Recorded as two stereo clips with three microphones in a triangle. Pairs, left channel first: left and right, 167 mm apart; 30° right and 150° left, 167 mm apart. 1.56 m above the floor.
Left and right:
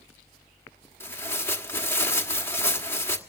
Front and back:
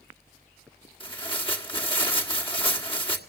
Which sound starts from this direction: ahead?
Tearing paper, at 1.0 s.